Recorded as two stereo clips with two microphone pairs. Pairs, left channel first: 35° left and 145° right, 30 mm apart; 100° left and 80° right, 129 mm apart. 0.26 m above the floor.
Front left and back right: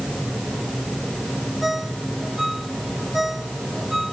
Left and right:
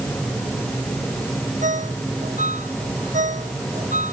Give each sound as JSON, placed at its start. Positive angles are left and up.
{"t": 1.6, "sound": "a ringtone", "azimuth_deg": -65}